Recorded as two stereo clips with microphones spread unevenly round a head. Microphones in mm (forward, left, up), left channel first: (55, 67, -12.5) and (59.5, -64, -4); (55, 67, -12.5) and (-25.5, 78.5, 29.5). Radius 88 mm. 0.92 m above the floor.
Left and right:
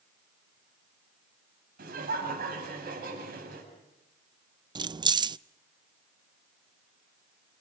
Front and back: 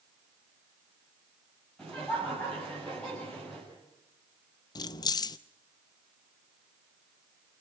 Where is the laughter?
90° right, 7.5 m.